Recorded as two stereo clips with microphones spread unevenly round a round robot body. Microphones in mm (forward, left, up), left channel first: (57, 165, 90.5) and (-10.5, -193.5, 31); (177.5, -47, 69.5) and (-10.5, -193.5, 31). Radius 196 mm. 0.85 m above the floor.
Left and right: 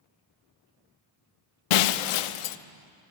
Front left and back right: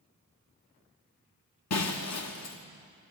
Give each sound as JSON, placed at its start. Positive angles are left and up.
{"t": 1.7, "sound": "breaking glass", "azimuth_deg": 90, "distance_m": 0.7}